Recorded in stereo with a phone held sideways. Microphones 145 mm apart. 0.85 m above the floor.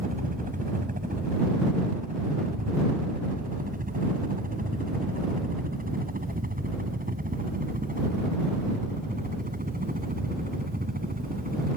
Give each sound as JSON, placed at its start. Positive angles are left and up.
{"t": 0.0, "sound": "a helicopter", "side_deg": -70}